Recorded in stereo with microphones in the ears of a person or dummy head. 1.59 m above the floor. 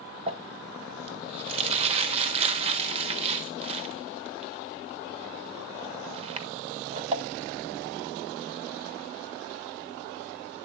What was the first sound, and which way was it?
Crumpling, 35° right (ahead or behind).